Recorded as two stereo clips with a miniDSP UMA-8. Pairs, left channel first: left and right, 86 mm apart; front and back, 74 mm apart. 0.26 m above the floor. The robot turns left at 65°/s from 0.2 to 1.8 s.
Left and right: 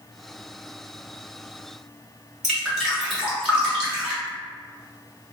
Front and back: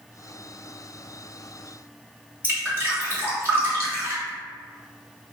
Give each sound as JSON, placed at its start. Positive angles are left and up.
{"t": 2.4, "sound": "dripping", "azimuth_deg": -170, "distance_m": 1.3}